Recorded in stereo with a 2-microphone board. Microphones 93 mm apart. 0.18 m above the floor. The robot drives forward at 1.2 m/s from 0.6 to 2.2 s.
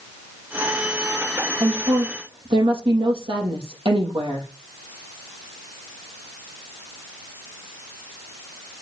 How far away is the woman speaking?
About 5.5 m.